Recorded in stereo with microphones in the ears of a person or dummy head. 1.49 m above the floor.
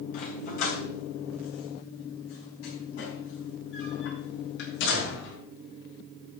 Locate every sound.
0.1 s a dog barking: 55° left (ahead or behind), 3 m; by 5.3 s 75° left (ahead or behind), 6 m